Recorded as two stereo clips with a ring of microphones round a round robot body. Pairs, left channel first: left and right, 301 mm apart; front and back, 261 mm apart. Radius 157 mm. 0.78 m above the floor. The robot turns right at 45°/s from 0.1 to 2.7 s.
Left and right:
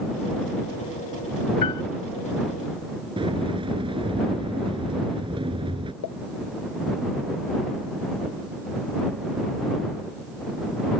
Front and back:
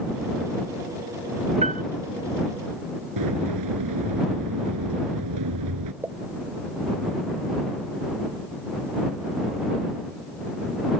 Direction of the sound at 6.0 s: 100° left.